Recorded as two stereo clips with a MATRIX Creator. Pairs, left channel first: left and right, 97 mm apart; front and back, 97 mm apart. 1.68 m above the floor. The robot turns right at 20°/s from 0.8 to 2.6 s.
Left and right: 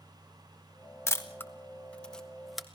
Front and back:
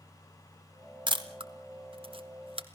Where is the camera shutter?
150° left, 1.5 m; by 2.7 s straight behind, 1.5 m.